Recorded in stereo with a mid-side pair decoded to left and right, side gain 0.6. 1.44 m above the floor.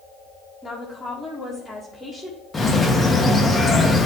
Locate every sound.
0.6 s a woman speaking: 10° left, 2 m
2.5 s a bird: 20° left, 1.4 m